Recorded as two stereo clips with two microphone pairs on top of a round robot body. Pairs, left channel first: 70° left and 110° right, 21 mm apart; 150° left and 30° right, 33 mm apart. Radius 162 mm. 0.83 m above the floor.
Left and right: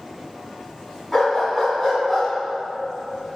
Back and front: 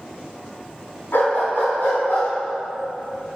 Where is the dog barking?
160° left, 3 m; by 2.3 s 165° left, 3.5 m.